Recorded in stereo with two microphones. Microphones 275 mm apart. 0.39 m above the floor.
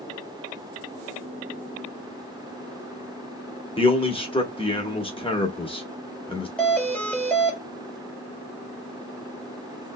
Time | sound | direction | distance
3.8 | a man speaking | 20° left (ahead or behind) | 1.0 m
6.6 | a doorbell | 5° left (ahead or behind) | 1.4 m